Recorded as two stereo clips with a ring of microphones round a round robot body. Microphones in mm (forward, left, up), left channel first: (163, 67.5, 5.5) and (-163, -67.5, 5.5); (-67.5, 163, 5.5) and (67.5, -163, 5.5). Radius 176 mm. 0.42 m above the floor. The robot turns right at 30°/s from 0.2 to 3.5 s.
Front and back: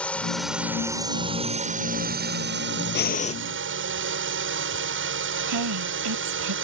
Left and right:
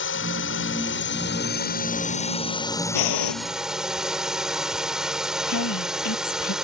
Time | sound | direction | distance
0.0 | a drone | 105° left | ?
3.0 | breathing | 85° left | ?
5.5 | a woman speaking | 160° left | ?